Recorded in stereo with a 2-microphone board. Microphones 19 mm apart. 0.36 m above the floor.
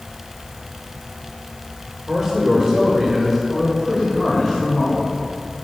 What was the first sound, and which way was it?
A man speaking, 25° right (ahead or behind).